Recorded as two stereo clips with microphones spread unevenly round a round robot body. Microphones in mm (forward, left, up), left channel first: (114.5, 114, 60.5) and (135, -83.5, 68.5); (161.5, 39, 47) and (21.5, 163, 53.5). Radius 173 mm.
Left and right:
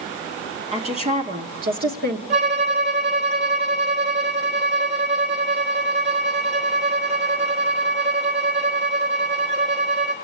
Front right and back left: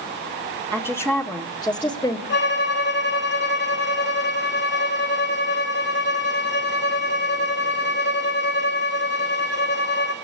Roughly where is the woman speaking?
Behind right.